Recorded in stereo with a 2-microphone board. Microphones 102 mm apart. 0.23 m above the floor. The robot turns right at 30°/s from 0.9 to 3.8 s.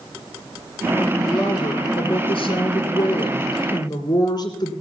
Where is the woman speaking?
50° left, 3 m; by 4.7 s 130° left, 3 m.